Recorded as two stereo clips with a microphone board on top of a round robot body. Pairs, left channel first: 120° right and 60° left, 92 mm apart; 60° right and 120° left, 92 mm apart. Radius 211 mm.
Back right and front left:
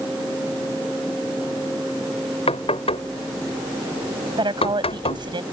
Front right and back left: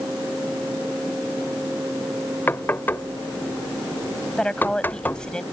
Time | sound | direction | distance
2.5 | knocking | 130° right | ?
4.4 | a woman speaking | 20° left | ?